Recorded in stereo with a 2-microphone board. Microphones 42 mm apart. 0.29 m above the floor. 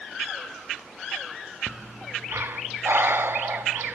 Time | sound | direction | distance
1.7 | breathing | 65° right (ahead or behind) | 0.8 m